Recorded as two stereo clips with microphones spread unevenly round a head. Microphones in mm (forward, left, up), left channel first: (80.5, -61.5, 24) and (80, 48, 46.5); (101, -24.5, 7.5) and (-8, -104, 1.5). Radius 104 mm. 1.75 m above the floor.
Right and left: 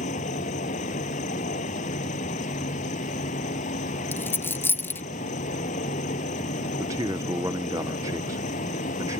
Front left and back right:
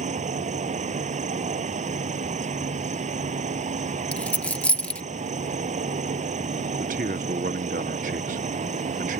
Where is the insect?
110° right.